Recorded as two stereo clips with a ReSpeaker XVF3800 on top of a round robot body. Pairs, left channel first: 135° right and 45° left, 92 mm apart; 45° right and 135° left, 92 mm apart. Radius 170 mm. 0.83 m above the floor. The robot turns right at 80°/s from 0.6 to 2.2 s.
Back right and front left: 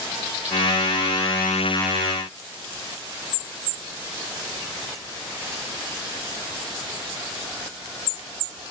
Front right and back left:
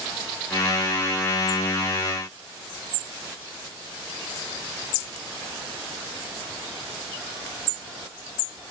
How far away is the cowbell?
No cowbell in this recording.